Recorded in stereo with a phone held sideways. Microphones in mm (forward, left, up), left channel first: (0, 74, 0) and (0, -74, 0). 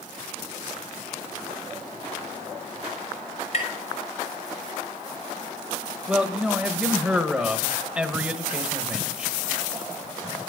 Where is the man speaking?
5° right (ahead or behind), 1.2 m.